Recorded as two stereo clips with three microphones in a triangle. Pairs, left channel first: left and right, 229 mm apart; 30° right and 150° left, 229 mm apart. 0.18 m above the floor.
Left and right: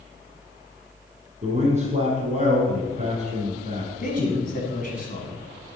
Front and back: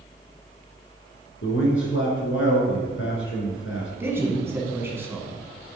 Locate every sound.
1.4 s a man speaking: 35° right, 1.9 m
4.0 s a man speaking: 75° left, 1.2 m